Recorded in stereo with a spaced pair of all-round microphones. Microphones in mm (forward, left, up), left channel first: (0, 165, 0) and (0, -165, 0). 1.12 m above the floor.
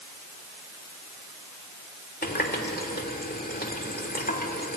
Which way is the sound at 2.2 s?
25° left (ahead or behind).